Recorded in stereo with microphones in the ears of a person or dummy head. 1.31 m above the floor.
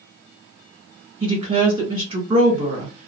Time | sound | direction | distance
1.2 | a woman speaking | 40° right (ahead or behind) | 1.4 m